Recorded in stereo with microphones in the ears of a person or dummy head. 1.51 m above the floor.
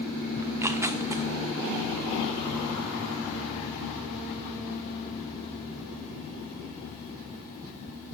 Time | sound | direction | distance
0.4 | tearing paper | 10° right (ahead or behind) | 0.6 m